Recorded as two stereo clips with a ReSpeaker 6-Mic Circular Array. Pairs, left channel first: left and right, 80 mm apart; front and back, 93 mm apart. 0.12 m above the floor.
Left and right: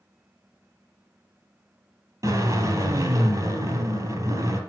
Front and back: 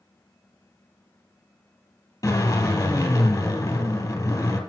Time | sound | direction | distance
2.2 | a drill | 50° right | 3 m